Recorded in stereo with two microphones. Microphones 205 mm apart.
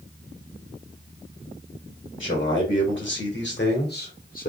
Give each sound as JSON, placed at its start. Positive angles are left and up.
{"t": 2.2, "sound": "a man speaking", "side_deg": 70, "distance_m": 2.0}